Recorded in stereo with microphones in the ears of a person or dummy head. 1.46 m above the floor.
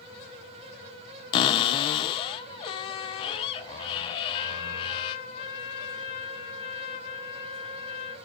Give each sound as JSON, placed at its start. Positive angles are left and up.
{"t": 1.3, "sound": "a cupboard door", "side_deg": 30, "distance_m": 0.6}
{"t": 4.3, "sound": "a trumpet", "side_deg": 35, "distance_m": 1.2}